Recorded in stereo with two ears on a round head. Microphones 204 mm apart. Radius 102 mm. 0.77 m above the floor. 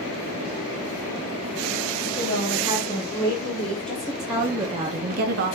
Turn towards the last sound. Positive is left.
turn(degrees=-55)  # may be behind; listen again after turning